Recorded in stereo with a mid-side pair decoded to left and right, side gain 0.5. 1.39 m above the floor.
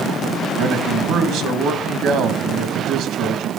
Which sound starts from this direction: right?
A man speaking, at 0.6 s.